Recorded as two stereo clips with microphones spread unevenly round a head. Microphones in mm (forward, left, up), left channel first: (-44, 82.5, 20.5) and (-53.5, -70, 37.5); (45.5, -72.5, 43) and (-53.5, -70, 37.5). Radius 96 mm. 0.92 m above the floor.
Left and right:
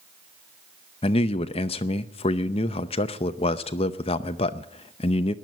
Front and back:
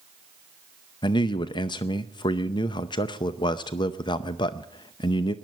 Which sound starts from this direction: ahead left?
A man speaking, at 1.0 s.